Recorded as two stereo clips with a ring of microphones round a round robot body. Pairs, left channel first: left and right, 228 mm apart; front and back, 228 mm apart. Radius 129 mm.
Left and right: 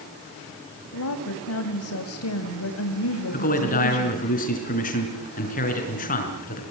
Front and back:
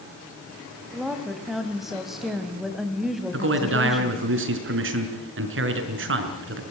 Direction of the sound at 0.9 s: 90° left.